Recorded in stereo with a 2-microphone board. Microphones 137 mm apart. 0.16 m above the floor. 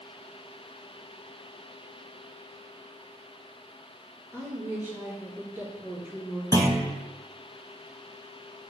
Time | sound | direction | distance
4.3 | a woman speaking | 15° right (ahead or behind) | 3 m
6.5 | a clunk | 25° right (ahead or behind) | 1.2 m